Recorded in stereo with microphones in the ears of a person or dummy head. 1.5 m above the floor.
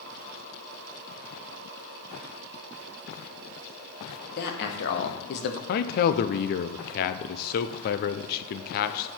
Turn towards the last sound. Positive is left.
turn(degrees=55)  # may be behind; listen again after turning